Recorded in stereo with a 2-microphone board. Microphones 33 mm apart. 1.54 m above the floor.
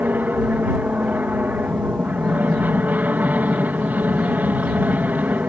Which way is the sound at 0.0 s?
65° right (ahead or behind).